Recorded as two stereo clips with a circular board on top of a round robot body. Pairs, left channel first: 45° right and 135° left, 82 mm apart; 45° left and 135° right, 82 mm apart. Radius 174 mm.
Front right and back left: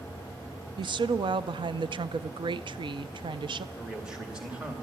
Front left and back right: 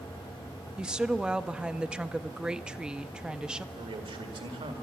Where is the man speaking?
145° right, 2.0 m.